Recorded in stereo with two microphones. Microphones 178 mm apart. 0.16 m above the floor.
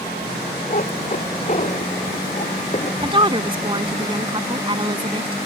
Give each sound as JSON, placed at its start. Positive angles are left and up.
{"t": 0.7, "sound": "a cat meowing", "side_deg": 45}
{"t": 3.0, "sound": "a woman speaking", "side_deg": -30}